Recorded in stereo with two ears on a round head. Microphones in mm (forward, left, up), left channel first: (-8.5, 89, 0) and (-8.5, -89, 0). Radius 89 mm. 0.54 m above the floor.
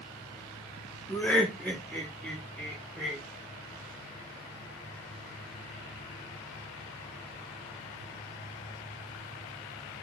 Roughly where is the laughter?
Centre.